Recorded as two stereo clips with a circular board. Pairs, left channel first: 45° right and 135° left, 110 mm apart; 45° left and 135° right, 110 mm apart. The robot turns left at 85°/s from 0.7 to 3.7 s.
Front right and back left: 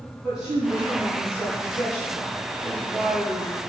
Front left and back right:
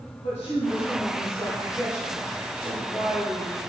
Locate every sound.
0.2 s a woman speaking: 50° left, 4 m; by 3.6 s 165° left, 4 m